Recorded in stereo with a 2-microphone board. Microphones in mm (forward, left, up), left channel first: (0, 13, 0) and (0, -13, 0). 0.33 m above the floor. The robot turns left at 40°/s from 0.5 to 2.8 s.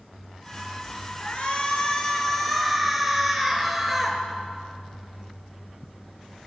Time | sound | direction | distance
1.2 | a shout | 65° left | 5.5 m